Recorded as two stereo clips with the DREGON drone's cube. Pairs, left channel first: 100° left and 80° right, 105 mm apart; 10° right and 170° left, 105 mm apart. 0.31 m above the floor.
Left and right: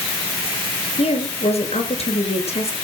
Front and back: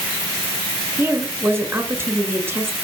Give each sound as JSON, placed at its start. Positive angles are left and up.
{"t": 1.0, "sound": "a woman speaking", "azimuth_deg": 100, "distance_m": 5.5}